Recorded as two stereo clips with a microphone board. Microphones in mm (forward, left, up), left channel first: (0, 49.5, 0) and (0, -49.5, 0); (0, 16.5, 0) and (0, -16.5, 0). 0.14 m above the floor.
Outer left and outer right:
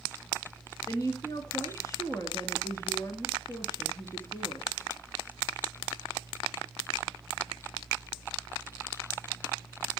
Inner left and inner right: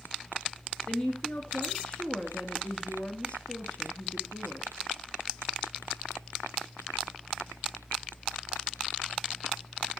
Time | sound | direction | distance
0.9 | a woman speaking | 35° left (ahead or behind) | 1.8 m